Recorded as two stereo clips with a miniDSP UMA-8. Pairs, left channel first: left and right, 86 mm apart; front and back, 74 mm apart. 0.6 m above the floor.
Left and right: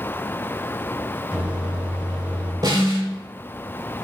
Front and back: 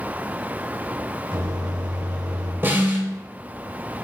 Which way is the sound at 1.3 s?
165° right.